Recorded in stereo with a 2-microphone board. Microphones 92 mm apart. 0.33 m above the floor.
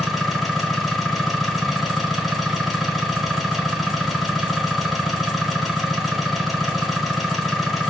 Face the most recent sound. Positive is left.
turn(degrees=0)  # may be behind; listen again after turning